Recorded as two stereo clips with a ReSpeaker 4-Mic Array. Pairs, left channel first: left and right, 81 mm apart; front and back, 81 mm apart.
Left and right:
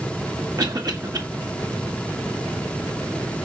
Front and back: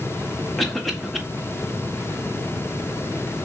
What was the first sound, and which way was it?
A cough, 90° right.